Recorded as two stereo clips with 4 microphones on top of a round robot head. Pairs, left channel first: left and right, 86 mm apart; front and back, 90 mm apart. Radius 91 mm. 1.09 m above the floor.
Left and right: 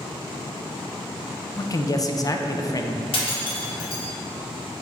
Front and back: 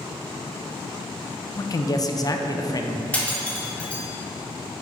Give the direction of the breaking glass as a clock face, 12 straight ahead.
9 o'clock.